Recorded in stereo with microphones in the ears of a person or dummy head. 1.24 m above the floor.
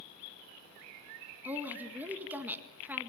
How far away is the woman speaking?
About 2.0 m.